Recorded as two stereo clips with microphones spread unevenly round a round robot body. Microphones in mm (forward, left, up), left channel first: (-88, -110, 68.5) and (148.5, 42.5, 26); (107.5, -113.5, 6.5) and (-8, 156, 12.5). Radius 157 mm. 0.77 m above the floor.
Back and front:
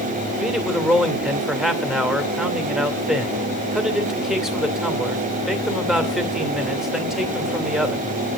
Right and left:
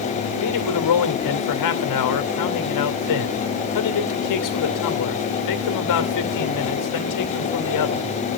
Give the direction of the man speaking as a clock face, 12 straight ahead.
2 o'clock.